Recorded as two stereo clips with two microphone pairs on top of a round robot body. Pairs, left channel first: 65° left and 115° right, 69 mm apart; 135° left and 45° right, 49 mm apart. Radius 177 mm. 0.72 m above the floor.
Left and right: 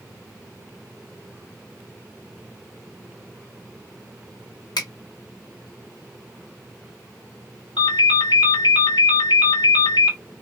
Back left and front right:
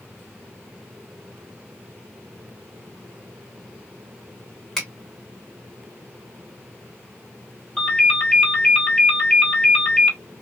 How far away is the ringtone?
About 1.5 m.